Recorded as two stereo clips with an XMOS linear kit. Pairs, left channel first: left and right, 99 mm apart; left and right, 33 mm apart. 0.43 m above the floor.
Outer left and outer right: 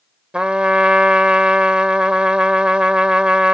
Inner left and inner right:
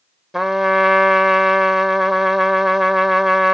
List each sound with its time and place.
0.3 s a trumpet: 10° right (ahead or behind)